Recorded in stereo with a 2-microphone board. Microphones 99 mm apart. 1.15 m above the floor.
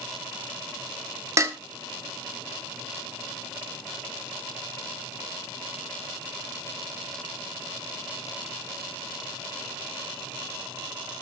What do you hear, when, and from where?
1.4 s dishes clattering: 30° right (ahead or behind), 1.2 m